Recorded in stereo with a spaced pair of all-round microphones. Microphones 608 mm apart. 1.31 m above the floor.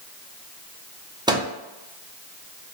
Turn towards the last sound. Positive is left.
turn(degrees=-10)  # may be behind; listen again after turning